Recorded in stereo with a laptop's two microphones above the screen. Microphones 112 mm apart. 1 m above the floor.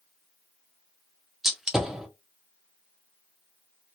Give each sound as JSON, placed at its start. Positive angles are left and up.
{"t": 1.4, "sound": "a gunshot", "side_deg": -5, "distance_m": 0.5}